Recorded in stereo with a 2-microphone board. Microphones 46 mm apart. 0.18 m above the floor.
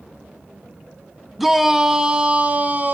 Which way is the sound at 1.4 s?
Centre (ahead or behind).